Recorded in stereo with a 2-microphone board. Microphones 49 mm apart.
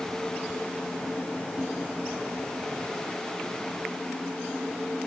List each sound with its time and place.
Only background noise.